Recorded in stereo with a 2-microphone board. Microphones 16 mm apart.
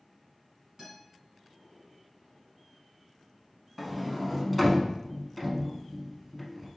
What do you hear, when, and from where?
0.8 s a guitar: 25° right (ahead or behind), 1.8 m
3.8 s a sliding door: 5° left (ahead or behind), 0.5 m